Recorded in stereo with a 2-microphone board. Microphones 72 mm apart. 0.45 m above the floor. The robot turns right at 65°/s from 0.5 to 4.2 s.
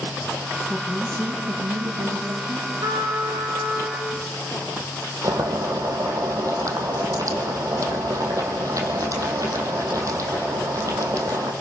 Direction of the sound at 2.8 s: 110° right.